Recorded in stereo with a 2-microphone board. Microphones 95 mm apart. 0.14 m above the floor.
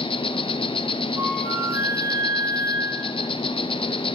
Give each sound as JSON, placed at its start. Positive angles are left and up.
{"t": 0.0, "sound": "an insect", "side_deg": 65, "distance_m": 1.1}
{"t": 1.2, "sound": "a flute", "side_deg": -20, "distance_m": 6.0}